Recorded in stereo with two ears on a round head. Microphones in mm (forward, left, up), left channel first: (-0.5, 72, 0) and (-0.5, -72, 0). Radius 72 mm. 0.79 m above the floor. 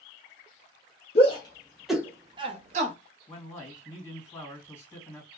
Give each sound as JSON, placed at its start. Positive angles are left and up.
{"t": 1.1, "sound": "a shout", "side_deg": 40, "distance_m": 0.7}
{"t": 3.3, "sound": "a man speaking", "side_deg": 15, "distance_m": 1.7}